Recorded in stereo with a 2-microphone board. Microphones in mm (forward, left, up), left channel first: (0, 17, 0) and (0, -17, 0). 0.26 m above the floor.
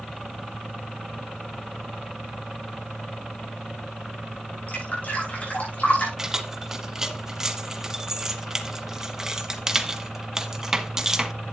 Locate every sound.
4.7 s dripping: 45° left (ahead or behind), 7.5 m
6.2 s keys jangling: 15° right (ahead or behind), 1.2 m